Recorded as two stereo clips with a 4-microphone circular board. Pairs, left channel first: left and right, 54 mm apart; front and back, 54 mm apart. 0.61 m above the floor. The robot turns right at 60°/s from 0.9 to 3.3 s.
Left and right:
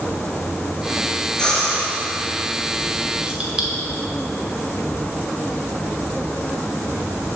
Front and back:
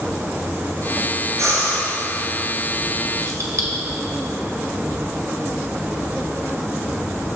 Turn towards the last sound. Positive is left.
turn(degrees=-160)